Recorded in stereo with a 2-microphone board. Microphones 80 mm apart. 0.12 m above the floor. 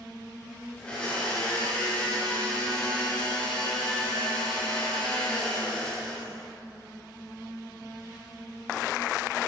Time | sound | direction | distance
0.8 | a blender | 15° left (ahead or behind) | 10 m